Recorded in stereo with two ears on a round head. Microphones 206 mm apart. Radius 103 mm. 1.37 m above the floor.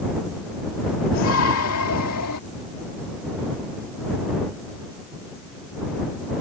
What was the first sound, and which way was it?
A shout, 60° left (ahead or behind).